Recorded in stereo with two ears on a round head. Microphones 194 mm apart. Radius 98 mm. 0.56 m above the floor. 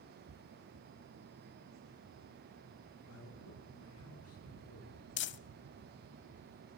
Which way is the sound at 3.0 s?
80° left.